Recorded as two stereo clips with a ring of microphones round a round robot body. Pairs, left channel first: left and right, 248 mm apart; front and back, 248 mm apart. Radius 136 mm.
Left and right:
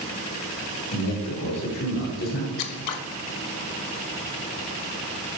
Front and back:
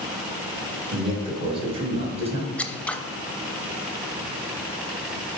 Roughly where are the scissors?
Left.